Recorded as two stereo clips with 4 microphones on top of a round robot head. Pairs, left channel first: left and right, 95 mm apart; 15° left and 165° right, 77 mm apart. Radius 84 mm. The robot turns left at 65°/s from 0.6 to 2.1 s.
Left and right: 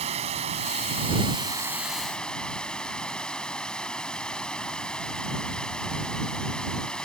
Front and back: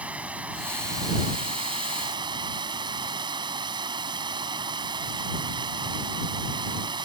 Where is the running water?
90° right; by 7.0 s 170° left.